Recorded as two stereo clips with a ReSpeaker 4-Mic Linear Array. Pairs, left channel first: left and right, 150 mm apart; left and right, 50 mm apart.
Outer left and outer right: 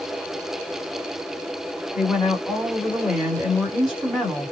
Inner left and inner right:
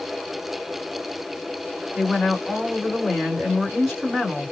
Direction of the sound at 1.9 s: 5° right (ahead or behind).